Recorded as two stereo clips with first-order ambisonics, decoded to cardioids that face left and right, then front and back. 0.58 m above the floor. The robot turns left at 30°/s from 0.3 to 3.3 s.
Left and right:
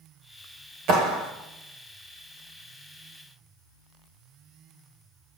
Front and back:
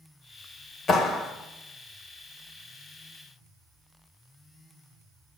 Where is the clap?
60° right, 2.5 m; by 1.3 s 75° right, 2.5 m.